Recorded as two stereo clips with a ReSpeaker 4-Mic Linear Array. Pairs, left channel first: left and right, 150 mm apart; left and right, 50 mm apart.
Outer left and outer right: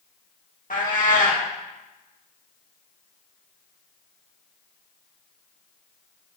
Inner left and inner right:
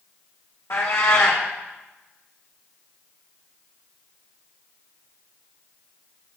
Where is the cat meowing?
70° left (ahead or behind), 1.9 m.